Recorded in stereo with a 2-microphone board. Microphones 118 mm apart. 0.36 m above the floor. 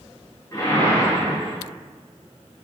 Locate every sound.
0.5 s a whoosh: 25° left (ahead or behind), 1.6 m